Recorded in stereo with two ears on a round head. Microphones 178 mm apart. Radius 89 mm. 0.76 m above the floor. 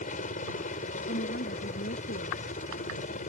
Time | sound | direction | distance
0.0 | a helicopter | 40° left (ahead or behind) | ?
1.1 | a woman speaking | 50° left (ahead or behind) | ?